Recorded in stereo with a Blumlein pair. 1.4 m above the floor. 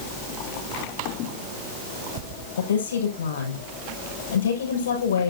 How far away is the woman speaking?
About 7 m.